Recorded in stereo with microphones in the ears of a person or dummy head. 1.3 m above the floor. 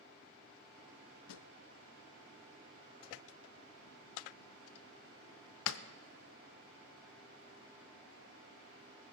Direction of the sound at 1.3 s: 65° left (ahead or behind).